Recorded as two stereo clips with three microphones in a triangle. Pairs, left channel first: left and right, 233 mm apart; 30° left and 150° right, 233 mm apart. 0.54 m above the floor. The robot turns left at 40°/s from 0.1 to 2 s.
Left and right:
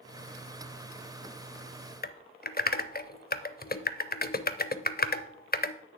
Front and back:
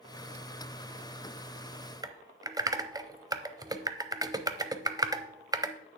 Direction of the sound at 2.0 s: 140° left.